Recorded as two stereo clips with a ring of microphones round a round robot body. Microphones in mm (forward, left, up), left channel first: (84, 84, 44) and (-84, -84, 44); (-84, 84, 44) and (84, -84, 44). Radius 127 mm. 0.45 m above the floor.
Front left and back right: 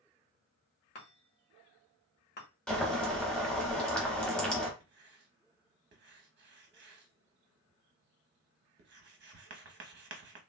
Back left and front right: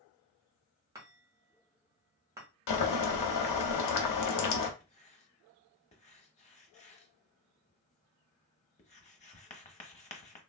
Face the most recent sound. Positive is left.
turn(degrees=-170)